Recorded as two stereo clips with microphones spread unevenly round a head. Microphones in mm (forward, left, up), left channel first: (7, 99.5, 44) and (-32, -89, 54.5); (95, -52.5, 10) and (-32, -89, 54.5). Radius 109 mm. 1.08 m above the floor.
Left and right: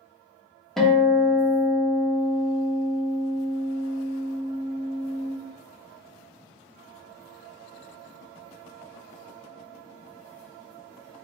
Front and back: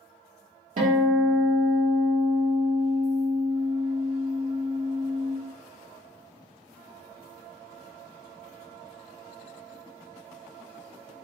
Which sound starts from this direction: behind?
A guitar, at 0.8 s.